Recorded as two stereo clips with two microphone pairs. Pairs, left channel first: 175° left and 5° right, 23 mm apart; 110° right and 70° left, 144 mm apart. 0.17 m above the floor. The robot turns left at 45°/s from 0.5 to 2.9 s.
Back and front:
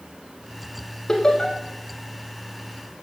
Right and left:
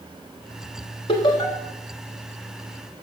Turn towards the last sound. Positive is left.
turn(degrees=145)